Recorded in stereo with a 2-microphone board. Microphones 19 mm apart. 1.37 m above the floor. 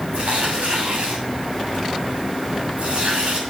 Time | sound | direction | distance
0.1 | tearing paper | 85° right | 7 m